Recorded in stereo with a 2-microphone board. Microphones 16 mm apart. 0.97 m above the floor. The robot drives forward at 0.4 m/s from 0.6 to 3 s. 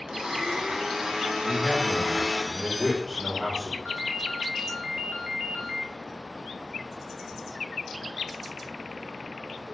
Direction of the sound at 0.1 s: 70° right (ahead or behind).